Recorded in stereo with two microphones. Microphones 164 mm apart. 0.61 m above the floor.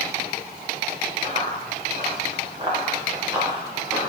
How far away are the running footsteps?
About 5 m.